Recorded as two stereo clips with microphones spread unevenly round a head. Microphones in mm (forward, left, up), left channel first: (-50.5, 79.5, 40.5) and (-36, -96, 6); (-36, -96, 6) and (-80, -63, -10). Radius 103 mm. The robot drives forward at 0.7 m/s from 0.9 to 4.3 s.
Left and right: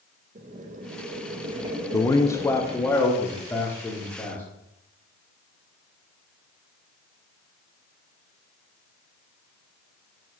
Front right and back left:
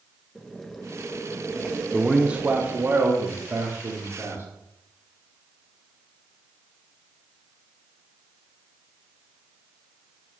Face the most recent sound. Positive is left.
turn(degrees=180)